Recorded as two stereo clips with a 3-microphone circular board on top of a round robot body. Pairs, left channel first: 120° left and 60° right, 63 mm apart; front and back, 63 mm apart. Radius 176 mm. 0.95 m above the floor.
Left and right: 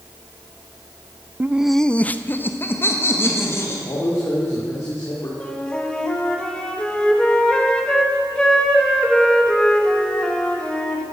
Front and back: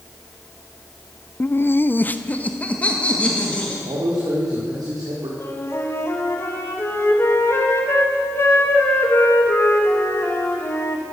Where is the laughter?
35° right, 0.5 m; by 3.8 s 70° left, 2.5 m.